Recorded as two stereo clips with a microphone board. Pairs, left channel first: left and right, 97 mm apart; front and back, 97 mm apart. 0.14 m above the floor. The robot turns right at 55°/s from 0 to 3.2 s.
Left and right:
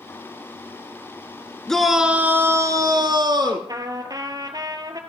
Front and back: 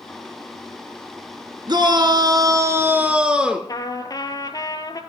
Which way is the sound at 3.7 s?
45° right.